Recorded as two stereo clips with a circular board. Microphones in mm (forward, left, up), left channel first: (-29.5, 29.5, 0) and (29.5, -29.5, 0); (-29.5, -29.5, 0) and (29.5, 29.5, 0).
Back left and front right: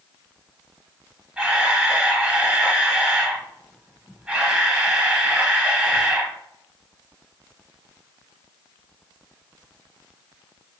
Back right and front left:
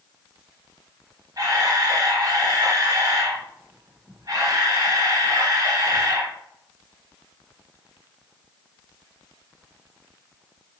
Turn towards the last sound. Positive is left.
turn(degrees=30)